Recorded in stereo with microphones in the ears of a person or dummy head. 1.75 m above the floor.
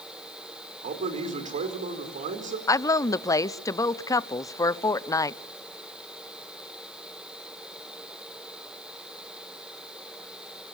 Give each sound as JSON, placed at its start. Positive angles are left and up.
{"t": 0.8, "sound": "a man speaking", "side_deg": -45, "distance_m": 4.5}
{"t": 2.7, "sound": "a woman speaking", "side_deg": 15, "distance_m": 0.7}